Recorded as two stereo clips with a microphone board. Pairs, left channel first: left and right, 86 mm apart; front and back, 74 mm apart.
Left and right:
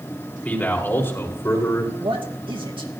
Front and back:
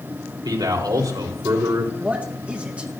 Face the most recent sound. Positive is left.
turn(degrees=-105)